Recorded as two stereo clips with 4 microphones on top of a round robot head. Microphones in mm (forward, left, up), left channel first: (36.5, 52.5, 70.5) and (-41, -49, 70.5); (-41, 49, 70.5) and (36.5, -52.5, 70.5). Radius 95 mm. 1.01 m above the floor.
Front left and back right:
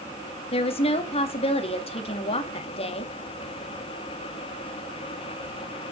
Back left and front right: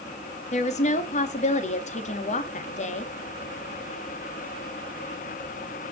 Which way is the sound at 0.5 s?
95° left.